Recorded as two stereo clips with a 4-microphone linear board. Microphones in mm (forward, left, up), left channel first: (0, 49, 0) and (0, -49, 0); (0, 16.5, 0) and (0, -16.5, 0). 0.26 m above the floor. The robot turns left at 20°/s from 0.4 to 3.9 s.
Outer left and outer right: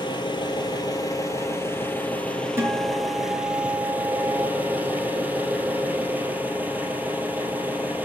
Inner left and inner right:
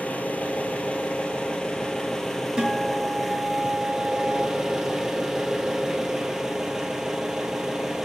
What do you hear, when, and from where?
0.0 s an engine running: 50° left, 2.5 m; by 8.1 s 20° right, 2.5 m
2.6 s a guitar: 25° right (ahead or behind), 4 m; by 4.5 s centre (ahead or behind), 4 m